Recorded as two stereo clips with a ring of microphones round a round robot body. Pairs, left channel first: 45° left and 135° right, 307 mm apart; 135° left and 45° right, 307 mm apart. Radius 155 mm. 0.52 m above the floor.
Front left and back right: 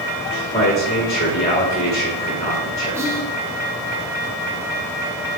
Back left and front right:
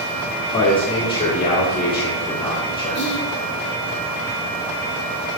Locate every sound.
0.5 s a man speaking: 85° left, 1.3 m
3.0 s whispering: 150° left, 0.8 m